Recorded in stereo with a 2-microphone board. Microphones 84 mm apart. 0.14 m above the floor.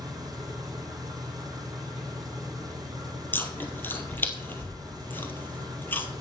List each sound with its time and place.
0.0 s an engine running: 45° right (ahead or behind), 2 m
3.3 s chewing: 25° left (ahead or behind), 1.3 m